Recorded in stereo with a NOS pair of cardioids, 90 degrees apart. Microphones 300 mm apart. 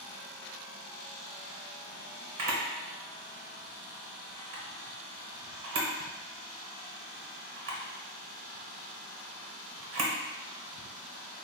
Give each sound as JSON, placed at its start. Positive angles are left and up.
{"t": 2.4, "sound": "a camera shutter", "azimuth_deg": -50, "distance_m": 1.0}